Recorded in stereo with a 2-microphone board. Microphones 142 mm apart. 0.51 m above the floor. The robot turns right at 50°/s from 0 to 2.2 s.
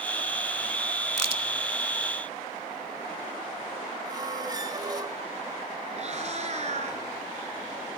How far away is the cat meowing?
About 3 m.